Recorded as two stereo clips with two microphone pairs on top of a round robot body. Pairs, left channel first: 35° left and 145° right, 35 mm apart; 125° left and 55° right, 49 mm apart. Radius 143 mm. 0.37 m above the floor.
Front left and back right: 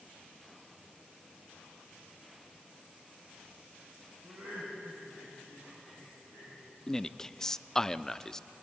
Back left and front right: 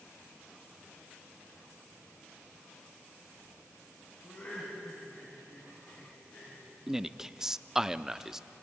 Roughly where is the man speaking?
Ahead left.